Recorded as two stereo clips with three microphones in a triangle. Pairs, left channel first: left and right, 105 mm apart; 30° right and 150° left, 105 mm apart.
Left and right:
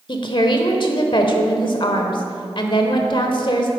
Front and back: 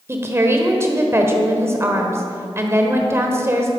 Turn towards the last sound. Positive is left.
turn(degrees=95)